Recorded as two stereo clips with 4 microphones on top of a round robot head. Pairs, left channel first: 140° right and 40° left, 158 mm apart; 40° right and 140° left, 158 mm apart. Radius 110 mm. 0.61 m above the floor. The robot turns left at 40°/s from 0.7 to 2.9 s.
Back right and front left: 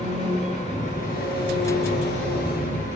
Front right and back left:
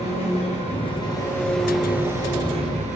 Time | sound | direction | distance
0.0 | an engine running | 90° right | 8.5 m